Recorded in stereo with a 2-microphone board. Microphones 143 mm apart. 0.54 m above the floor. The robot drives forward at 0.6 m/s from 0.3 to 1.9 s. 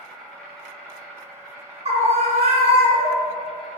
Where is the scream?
45° right (ahead or behind), 1.2 m.